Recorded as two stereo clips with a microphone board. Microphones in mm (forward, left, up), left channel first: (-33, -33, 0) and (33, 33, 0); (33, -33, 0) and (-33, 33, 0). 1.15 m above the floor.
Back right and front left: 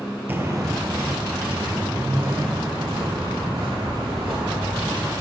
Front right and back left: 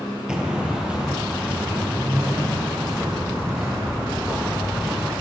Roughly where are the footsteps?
Ahead left.